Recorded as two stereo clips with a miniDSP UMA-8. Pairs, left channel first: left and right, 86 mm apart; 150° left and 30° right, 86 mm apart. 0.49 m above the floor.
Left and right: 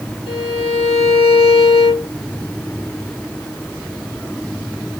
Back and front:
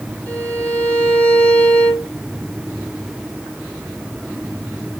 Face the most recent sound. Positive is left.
turn(degrees=80)